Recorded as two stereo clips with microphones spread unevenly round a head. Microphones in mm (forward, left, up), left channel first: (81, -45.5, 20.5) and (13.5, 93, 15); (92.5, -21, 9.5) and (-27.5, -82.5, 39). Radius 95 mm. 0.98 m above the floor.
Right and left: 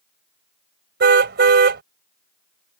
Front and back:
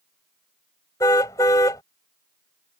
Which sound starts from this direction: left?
A car horn, at 1.0 s.